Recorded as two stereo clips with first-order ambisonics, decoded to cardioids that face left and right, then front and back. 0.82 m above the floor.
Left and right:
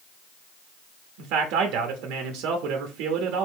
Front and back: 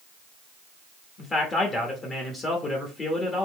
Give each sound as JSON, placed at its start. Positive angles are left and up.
{"t": 1.2, "sound": "a man speaking", "azimuth_deg": -70, "distance_m": 0.9}